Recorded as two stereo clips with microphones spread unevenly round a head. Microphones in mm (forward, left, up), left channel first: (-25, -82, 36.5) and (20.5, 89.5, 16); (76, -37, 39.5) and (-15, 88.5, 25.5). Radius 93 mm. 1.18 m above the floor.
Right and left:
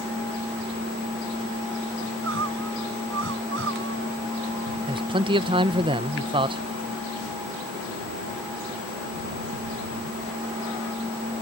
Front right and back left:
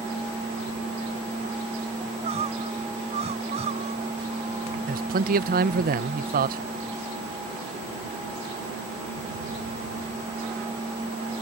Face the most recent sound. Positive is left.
turn(degrees=130)